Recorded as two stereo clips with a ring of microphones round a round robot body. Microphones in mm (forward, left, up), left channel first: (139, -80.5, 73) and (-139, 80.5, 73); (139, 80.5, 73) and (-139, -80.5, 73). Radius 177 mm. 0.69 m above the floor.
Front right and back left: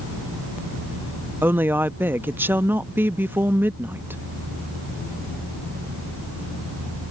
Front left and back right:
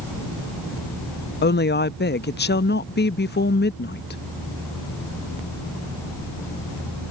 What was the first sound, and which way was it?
A woman speaking, 70° left.